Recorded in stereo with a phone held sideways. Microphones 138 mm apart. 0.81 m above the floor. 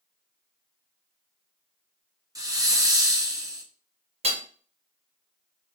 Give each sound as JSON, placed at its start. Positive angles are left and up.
{"t": 2.4, "sound": "a hiss", "side_deg": -25, "distance_m": 0.6}
{"t": 4.2, "sound": "hammering", "side_deg": -50, "distance_m": 0.6}